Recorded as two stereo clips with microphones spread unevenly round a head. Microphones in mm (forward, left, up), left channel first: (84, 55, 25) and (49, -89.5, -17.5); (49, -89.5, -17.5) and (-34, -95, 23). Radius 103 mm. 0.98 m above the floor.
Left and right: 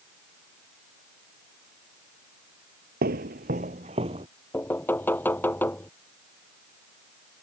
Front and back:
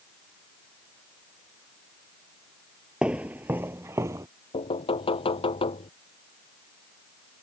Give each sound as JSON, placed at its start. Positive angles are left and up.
{"t": 3.0, "sound": "footsteps", "azimuth_deg": -135}
{"t": 4.5, "sound": "knocking", "azimuth_deg": 0}